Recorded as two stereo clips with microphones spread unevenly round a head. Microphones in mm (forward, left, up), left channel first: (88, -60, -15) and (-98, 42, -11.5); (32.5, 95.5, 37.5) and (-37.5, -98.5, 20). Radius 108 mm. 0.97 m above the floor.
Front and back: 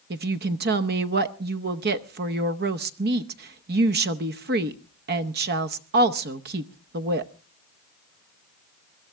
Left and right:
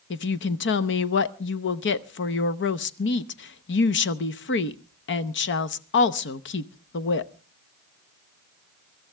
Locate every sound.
0.1 s a woman speaking: 105° left, 0.8 m